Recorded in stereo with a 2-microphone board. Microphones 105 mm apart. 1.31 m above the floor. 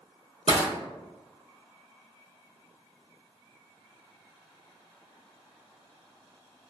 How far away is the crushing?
About 1.6 m.